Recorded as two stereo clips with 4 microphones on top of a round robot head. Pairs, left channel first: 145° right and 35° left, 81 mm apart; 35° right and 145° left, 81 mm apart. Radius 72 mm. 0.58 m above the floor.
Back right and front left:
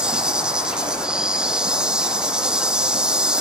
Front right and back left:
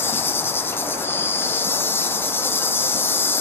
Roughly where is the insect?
Ahead right.